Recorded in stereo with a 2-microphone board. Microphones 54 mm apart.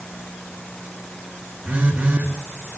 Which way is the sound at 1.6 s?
25° right (ahead or behind).